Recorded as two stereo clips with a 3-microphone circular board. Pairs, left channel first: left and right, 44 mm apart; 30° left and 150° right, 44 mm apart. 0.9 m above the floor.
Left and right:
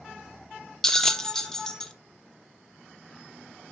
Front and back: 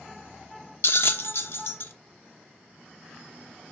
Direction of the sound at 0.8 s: 15° left.